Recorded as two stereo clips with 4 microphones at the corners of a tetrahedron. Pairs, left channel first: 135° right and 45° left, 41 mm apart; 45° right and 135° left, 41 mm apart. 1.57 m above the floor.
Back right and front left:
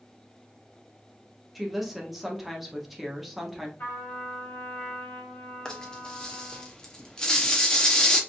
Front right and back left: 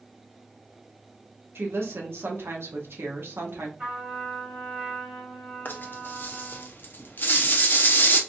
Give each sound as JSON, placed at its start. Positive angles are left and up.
{"t": 1.6, "sound": "a woman speaking", "azimuth_deg": 130, "distance_m": 0.9}
{"t": 3.8, "sound": "a trumpet", "azimuth_deg": -165, "distance_m": 1.6}
{"t": 5.7, "sound": "a rattle", "azimuth_deg": -65, "distance_m": 0.7}